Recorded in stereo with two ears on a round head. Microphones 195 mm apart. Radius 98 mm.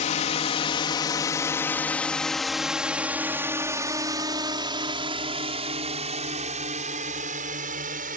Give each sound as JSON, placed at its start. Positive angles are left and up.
{"t": 0.0, "sound": "a drone", "side_deg": 35}